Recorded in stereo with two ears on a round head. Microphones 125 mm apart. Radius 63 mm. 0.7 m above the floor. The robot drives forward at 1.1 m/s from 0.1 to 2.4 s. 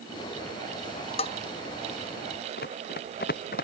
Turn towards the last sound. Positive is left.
turn(degrees=70)  # may be behind; listen again after turning